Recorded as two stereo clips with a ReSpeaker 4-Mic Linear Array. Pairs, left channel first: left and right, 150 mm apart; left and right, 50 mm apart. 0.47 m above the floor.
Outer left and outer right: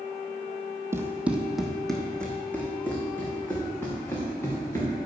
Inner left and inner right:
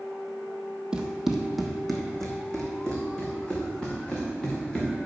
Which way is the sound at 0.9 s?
15° right (ahead or behind).